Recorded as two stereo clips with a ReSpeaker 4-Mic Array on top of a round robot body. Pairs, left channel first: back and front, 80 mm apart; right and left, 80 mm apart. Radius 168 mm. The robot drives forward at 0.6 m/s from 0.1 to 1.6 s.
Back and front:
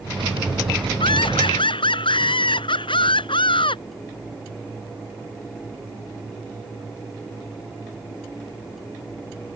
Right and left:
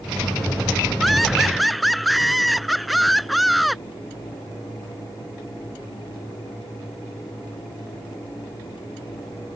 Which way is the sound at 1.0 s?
Straight behind.